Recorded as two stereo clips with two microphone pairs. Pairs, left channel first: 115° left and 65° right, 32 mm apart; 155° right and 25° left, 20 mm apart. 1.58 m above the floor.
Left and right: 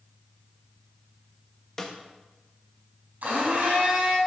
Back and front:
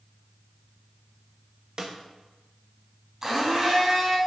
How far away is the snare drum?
About 1.0 m.